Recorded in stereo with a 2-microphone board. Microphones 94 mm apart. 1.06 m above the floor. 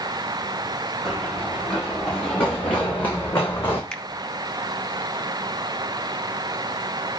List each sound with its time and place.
1.1 s running footsteps: 5° left (ahead or behind), 6.5 m; by 3.8 s 25° left (ahead or behind), 5.5 m
3.9 s a finger snap: 10° left (ahead or behind), 1.3 m